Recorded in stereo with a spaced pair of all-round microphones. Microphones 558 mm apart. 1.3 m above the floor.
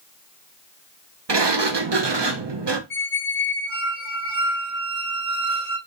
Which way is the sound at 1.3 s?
45° right (ahead or behind).